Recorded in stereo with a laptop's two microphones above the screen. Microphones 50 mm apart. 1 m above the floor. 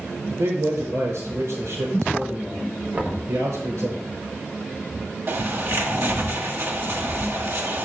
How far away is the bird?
About 1.2 m.